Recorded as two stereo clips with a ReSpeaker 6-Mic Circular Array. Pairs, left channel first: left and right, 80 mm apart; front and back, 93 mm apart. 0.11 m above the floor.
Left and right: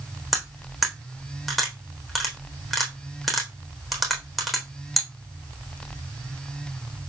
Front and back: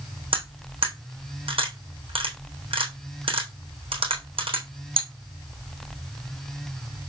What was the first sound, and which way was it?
Cutlery clinking, straight behind.